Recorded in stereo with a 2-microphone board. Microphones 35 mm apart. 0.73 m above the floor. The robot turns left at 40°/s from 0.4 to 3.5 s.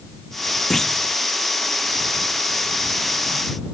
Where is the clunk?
5° left (ahead or behind); by 1.1 s 20° left (ahead or behind).